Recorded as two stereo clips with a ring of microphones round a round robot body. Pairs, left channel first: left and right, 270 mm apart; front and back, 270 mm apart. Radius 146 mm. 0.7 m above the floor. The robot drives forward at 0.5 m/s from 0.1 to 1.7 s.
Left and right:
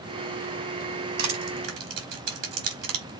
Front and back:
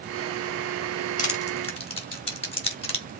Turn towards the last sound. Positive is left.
turn(degrees=-70)